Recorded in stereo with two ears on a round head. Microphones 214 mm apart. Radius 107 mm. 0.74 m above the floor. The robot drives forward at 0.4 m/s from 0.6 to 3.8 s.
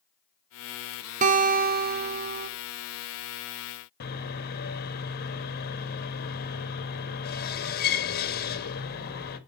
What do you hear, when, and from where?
1.2 s a guitar: 30° right (ahead or behind), 0.7 m; by 2.5 s 40° right (ahead or behind), 0.6 m
4.0 s sawing: 40° left (ahead or behind), 1.2 m